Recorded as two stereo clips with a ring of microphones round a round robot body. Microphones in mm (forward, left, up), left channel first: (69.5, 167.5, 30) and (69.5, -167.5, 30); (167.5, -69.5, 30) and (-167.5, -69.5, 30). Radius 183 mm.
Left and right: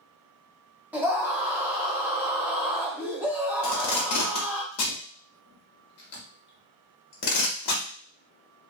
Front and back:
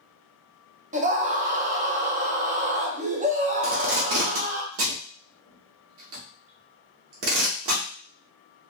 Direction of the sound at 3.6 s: 135° left.